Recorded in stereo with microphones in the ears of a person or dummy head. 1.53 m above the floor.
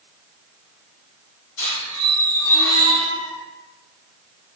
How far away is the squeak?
About 1.5 m.